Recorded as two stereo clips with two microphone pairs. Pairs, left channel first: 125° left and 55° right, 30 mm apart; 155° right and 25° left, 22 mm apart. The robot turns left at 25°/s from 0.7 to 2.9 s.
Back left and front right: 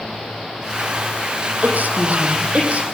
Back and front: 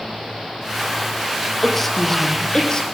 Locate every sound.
1.6 s a woman speaking: 65° right, 5 m; by 2.8 s 95° right, 5 m